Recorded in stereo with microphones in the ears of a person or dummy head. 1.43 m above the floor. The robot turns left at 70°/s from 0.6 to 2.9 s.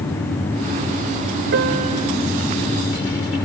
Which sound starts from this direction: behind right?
A piano, at 1.5 s.